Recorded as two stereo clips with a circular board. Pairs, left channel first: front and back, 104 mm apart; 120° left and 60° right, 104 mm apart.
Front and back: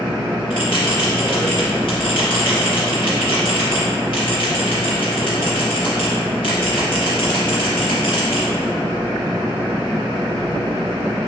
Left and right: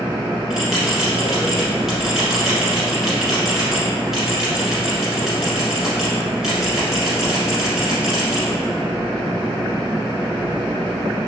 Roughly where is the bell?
Ahead left.